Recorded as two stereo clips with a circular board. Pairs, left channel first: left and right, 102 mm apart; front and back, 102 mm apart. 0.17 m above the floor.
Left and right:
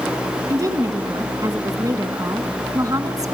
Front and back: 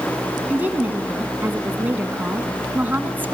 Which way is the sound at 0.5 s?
115° right.